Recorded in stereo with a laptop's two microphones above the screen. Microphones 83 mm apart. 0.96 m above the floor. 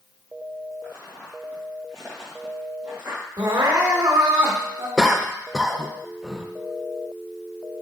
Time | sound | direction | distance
0.8 | footsteps | 30° left (ahead or behind) | 2 m
3.4 | crying | 85° right | 1.2 m
5.0 | a cough | 5° right (ahead or behind) | 0.6 m